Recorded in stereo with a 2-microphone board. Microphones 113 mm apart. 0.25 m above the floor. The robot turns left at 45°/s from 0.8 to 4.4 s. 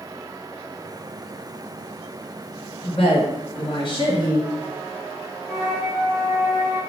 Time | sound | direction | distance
2.8 | a woman speaking | 115° left | 1.8 m
5.5 | a flute | 30° left (ahead or behind) | 1.6 m